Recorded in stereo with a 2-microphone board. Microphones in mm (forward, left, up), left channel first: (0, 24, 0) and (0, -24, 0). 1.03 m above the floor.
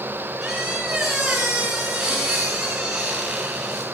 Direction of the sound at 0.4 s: 5° right (ahead or behind).